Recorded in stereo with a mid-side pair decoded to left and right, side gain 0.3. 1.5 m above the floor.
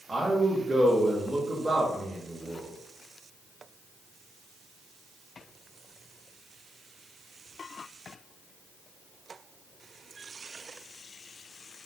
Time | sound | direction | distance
0.1 | a man speaking | 35° right | 1.5 m